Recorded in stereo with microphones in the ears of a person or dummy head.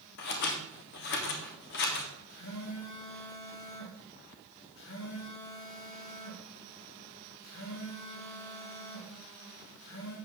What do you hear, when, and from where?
0.2 s scissors: 55° left (ahead or behind), 1.7 m
2.3 s a phone buzzing: 70° left (ahead or behind), 4 m